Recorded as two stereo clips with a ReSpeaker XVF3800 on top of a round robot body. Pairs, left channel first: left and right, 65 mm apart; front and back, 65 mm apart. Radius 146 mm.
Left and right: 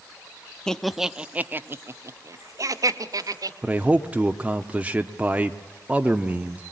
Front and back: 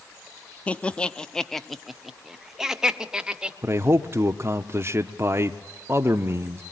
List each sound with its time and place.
0.7 s laughter: 25° left, 0.9 m; by 3.5 s 100° right, 2.0 m
3.6 s a man speaking: 150° right, 0.9 m